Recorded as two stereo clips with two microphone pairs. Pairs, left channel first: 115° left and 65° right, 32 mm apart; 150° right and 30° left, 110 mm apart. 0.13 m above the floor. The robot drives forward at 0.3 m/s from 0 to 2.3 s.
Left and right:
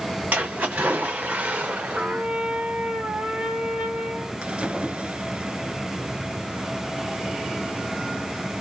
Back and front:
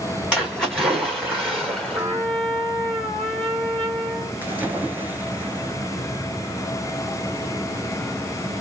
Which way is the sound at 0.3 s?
50° right.